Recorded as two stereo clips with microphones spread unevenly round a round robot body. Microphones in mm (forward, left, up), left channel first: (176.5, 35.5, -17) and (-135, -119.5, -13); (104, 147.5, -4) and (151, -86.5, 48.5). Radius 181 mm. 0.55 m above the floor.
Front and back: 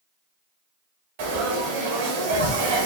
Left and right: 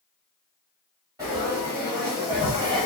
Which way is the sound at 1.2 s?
160° right.